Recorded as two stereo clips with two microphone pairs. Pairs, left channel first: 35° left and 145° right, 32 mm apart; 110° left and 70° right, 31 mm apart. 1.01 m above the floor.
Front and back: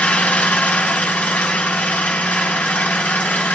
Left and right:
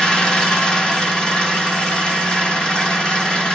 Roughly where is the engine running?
Ahead left.